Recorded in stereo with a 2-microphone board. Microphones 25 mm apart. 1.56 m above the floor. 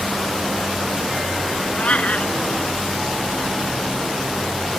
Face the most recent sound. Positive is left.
turn(degrees=60)  # may be behind; listen again after turning